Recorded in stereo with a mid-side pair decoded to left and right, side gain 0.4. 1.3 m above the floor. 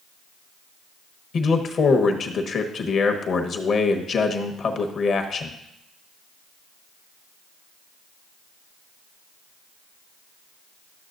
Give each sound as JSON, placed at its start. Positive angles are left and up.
{"t": 1.3, "sound": "a man speaking", "azimuth_deg": 60, "distance_m": 1.1}